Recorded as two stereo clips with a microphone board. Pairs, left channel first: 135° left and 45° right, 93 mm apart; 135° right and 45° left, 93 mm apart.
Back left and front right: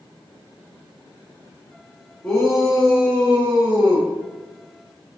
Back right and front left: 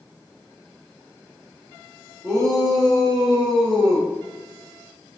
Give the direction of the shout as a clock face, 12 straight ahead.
10 o'clock.